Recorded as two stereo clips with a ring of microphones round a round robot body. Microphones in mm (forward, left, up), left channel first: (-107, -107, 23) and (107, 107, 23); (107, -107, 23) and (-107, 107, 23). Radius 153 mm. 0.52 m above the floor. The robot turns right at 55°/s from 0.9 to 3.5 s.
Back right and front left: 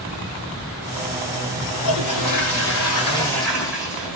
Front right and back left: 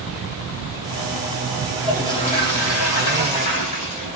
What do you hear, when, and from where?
1.8 s a toilet flushing: 140° right, 2 m; by 4.2 s 45° right, 2 m